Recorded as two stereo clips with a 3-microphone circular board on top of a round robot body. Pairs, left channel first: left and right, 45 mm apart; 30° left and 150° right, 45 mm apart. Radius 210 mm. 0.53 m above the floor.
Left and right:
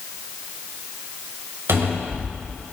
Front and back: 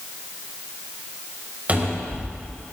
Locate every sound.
1.7 s a cupboard door: 90° right, 4 m